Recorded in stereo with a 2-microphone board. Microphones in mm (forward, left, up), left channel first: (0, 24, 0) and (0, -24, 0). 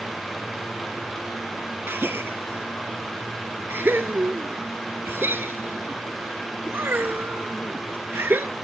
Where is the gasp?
50° right (ahead or behind), 1.1 m.